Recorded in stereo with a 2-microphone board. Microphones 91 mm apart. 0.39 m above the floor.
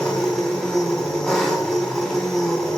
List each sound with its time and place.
0.0 s an engine running: 5° left (ahead or behind), 2.5 m